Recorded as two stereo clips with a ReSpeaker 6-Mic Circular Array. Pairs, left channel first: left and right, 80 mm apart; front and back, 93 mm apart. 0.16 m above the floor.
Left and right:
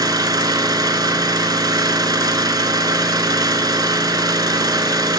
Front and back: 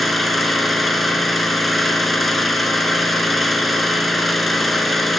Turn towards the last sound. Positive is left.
turn(degrees=-90)